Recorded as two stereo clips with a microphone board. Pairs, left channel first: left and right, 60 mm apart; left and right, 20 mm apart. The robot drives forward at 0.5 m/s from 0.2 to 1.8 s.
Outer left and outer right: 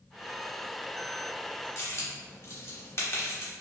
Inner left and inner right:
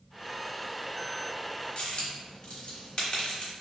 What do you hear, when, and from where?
1.8 s a dropped coin: 45° left (ahead or behind), 0.8 m